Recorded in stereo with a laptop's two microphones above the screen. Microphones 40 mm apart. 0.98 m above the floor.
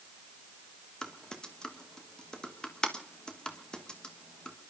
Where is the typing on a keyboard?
20° left (ahead or behind), 1.3 m.